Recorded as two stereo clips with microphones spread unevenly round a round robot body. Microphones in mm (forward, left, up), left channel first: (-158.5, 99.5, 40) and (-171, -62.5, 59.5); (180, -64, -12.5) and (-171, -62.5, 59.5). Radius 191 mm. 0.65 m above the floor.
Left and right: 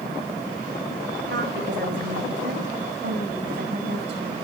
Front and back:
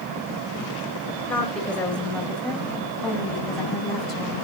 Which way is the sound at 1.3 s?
85° right.